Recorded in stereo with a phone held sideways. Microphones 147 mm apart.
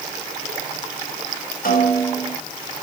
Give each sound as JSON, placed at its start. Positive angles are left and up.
{"t": 1.6, "sound": "a snare drum", "side_deg": 75, "distance_m": 7.0}